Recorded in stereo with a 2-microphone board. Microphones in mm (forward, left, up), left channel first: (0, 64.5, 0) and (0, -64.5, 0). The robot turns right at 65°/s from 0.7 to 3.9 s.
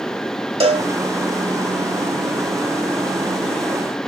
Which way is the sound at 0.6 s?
50° right (ahead or behind).